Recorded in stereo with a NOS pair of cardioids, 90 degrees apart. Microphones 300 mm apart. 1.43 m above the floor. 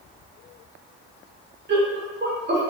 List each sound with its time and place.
1.7 s laughter: 35° right, 0.9 m